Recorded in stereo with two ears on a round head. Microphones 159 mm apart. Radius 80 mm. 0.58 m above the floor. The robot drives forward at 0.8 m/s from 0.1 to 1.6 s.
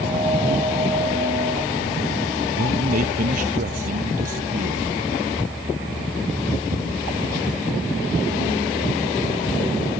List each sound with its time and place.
2.6 s a man speaking: 55° right (ahead or behind)